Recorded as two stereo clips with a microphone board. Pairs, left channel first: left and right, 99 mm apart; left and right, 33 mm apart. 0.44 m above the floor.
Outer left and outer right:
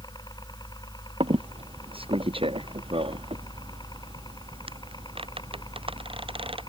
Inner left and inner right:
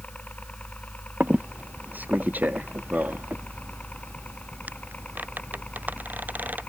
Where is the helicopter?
45° left (ahead or behind).